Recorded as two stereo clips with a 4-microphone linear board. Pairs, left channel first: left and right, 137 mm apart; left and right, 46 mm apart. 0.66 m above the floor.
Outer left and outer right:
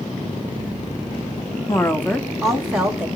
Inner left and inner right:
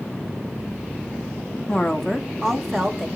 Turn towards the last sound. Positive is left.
turn(degrees=-10)  # may be behind; listen again after turning